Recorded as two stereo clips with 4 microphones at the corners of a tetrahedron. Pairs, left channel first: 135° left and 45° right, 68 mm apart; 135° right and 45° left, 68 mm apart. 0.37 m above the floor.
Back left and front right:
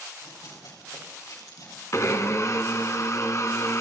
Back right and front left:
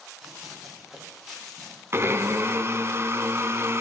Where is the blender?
95° left, 0.8 m.